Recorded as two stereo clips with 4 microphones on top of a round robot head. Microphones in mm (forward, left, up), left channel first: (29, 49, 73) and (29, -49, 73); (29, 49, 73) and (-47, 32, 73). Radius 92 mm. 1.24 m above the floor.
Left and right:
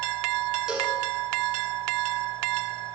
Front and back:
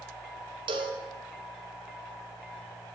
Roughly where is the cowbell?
Behind.